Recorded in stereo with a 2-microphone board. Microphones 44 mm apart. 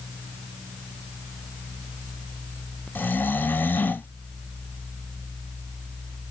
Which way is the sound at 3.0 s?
45° left (ahead or behind).